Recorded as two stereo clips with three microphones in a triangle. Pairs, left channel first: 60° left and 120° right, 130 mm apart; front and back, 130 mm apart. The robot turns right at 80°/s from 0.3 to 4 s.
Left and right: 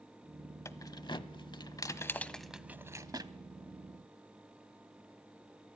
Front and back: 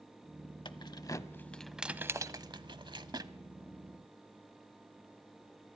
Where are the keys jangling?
5° left, 0.9 m; by 3.3 s 140° right, 0.9 m.